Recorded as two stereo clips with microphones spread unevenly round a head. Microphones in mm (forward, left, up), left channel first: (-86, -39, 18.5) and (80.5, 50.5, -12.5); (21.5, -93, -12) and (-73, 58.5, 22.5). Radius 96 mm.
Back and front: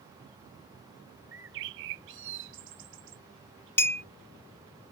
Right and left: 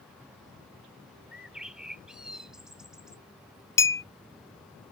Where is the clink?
135° right.